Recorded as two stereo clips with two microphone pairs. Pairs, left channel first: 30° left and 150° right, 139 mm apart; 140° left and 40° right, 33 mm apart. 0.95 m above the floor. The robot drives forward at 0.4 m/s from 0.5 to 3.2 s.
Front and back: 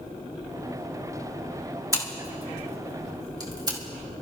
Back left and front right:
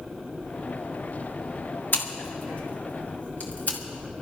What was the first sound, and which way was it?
Scissors, 145° left.